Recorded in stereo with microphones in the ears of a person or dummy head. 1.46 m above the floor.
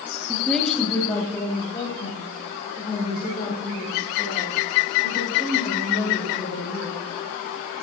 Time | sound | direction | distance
0.3 | a woman speaking | 5° right (ahead or behind) | 1.4 m